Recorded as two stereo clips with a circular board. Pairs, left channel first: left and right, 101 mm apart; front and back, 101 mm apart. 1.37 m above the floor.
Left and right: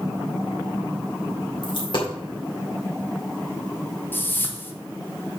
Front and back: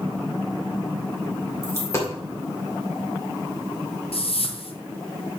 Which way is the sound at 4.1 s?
20° left.